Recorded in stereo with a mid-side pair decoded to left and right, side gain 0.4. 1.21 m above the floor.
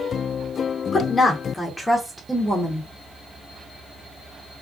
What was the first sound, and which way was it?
A woman speaking, 45° left.